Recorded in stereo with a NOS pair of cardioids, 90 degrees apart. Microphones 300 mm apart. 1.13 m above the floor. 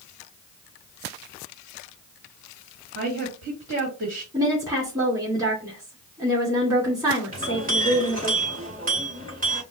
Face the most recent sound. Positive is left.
turn(degrees=-30)